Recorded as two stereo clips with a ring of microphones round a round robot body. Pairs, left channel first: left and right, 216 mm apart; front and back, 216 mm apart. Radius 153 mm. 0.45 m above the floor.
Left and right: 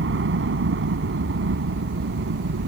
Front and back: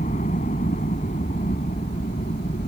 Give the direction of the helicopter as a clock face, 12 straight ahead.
2 o'clock.